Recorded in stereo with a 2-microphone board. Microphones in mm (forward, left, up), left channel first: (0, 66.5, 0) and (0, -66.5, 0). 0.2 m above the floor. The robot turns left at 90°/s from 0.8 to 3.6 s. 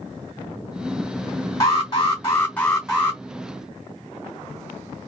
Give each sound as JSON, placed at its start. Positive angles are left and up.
{"t": 1.6, "sound": "an alarm", "side_deg": 25, "distance_m": 2.0}